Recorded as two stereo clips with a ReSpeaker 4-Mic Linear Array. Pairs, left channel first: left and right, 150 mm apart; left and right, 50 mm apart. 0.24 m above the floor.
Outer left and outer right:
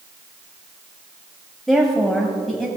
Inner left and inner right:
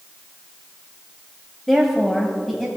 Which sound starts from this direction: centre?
A woman speaking, at 1.7 s.